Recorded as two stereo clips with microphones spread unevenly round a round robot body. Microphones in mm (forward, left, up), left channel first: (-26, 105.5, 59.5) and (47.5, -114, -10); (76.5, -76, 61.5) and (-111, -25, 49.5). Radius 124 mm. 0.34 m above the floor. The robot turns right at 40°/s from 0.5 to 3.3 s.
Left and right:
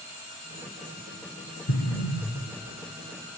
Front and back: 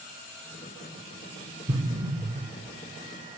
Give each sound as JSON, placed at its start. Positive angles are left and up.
{"t": 1.7, "sound": "an explosion", "azimuth_deg": 120, "distance_m": 1.1}